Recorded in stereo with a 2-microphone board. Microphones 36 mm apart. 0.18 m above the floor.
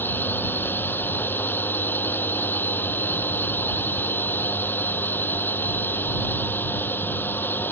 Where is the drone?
80° left.